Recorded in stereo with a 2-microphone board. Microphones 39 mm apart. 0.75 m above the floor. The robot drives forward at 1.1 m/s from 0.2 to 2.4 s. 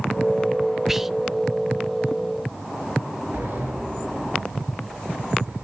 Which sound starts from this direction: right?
A sliding door, at 3.3 s.